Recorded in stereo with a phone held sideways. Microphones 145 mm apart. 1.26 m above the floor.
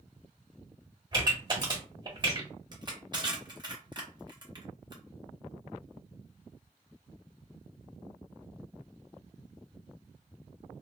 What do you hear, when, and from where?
1.1 s a pop: 30° right (ahead or behind), 1.3 m
2.7 s crushing: 30° right (ahead or behind), 0.8 m